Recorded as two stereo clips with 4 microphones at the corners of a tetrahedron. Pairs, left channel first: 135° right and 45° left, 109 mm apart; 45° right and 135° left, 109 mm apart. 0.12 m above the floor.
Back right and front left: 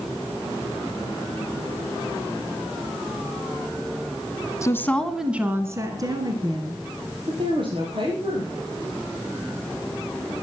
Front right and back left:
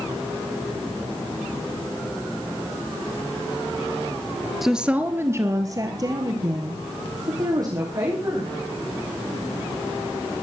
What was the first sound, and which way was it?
A woman speaking, 140° right.